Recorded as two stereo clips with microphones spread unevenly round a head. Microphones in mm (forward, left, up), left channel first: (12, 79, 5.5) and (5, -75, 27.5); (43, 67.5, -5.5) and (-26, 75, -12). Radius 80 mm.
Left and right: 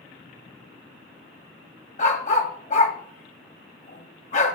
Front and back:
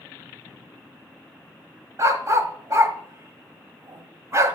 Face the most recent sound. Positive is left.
turn(degrees=135)